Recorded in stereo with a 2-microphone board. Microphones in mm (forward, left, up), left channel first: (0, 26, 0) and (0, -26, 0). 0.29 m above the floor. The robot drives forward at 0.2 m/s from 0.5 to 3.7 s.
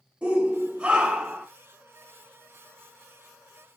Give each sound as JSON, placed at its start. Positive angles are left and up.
{"t": 0.2, "sound": "a shout", "side_deg": -25, "distance_m": 1.0}